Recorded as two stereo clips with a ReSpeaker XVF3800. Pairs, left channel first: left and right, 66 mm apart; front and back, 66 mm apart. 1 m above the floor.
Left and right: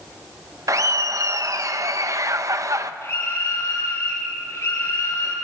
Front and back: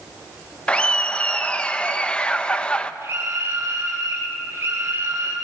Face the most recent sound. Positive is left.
turn(degrees=130)